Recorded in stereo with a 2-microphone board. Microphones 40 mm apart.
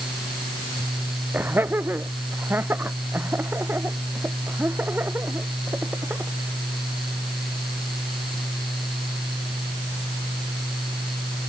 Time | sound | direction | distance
1.3 | laughter | 60° right (ahead or behind) | ?